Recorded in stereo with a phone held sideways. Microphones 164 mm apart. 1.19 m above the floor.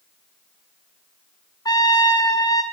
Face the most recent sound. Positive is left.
turn(degrees=25)  # may be behind; listen again after turning